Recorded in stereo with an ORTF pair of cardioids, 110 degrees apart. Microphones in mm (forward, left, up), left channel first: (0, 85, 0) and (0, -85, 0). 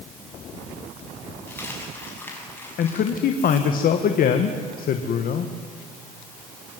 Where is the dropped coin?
10° left, 6.5 m.